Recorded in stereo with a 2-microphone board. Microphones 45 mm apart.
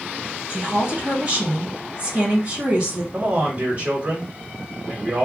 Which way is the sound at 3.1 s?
40° right (ahead or behind).